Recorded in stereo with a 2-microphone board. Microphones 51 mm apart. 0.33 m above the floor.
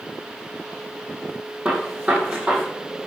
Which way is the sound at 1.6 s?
25° right (ahead or behind).